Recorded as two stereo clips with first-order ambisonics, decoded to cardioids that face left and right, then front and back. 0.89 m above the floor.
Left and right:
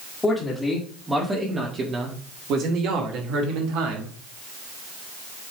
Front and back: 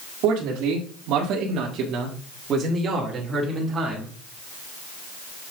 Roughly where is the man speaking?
Behind.